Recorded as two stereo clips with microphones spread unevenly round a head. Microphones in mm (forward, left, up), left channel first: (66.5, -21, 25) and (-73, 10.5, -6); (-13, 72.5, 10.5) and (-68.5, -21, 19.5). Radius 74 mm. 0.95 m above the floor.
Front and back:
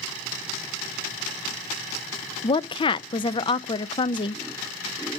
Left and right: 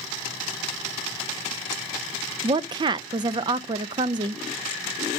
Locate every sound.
2.4 s a woman speaking: 75° right, 0.5 m